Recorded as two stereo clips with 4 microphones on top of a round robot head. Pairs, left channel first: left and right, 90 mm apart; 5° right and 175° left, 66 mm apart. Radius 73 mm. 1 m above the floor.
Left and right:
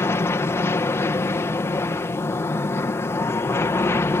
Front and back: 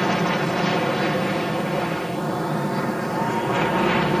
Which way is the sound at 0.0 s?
75° left.